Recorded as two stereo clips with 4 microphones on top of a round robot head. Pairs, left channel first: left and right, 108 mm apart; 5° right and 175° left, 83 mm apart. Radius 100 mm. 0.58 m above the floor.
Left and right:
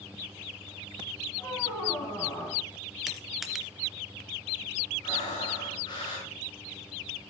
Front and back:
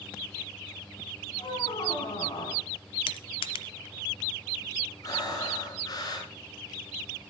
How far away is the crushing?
About 0.8 m.